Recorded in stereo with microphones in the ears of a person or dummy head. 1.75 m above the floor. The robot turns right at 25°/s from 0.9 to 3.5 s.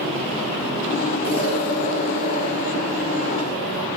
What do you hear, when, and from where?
1.2 s an explosion: 95° right, 1.6 m; by 3.9 s 35° right, 1.6 m